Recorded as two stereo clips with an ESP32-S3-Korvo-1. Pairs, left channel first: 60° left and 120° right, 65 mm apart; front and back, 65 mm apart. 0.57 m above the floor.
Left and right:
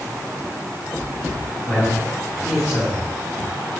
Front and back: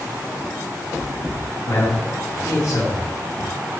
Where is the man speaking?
10° right, 5 m.